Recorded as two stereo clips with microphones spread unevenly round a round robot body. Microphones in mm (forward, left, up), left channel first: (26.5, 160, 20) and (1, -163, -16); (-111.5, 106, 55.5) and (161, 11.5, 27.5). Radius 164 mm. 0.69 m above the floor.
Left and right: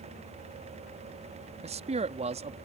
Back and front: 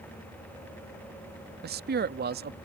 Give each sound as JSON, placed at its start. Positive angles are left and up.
{"t": 1.6, "sound": "a man speaking", "azimuth_deg": -40}